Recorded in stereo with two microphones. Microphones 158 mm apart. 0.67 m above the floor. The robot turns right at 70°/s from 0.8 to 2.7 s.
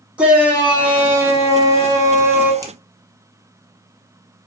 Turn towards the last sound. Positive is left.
turn(degrees=-20)  # may be behind; listen again after turning